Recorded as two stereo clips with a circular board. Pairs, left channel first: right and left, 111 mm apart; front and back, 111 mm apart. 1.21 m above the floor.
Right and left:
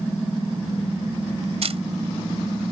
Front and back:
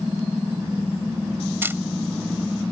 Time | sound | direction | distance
1.6 | a camera shutter | 110° left | ?